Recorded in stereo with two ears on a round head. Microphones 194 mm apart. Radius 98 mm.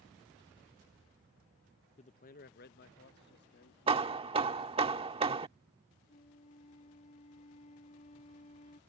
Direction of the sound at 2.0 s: 30° left (ahead or behind).